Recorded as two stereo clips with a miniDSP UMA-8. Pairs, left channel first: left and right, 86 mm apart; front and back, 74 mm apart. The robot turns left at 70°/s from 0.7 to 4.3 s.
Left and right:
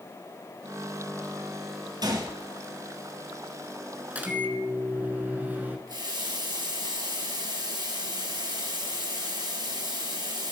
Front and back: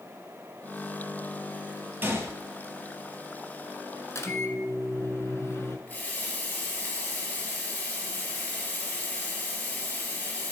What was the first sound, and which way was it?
A gunshot, 120° right.